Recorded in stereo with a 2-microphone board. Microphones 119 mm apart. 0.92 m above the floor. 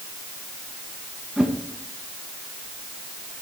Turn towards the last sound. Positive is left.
turn(degrees=-10)  # may be behind; listen again after turning